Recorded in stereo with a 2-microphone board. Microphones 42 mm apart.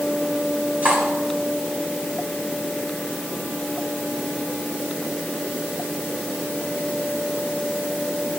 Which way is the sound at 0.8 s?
40° right (ahead or behind).